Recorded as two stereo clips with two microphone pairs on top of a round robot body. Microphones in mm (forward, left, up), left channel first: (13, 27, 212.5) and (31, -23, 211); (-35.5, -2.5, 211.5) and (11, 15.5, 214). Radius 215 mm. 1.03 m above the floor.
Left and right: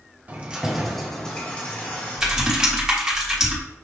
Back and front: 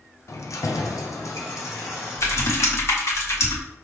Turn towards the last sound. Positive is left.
turn(degrees=-145)